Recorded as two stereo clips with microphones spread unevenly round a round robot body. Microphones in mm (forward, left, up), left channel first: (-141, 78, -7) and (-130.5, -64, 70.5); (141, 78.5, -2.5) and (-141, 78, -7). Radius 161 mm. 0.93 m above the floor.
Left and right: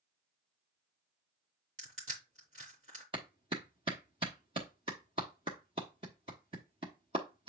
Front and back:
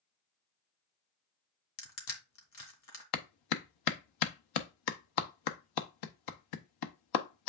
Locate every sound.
1.8 s crushing: 35° right, 2.0 m
3.1 s a clap: 10° right, 0.8 m